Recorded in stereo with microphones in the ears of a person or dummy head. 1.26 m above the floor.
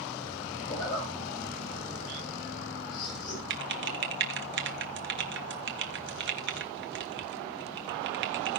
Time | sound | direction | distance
0.7 | a zipper | 30° left (ahead or behind) | 8.5 m
3.5 | typing on a keyboard | 55° right (ahead or behind) | 1.2 m